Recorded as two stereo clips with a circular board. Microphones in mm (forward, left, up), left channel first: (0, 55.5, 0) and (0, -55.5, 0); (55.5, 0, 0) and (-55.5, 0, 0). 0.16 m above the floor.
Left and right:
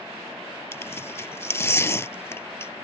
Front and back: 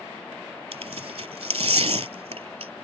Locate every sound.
0.7 s tearing paper: 155° left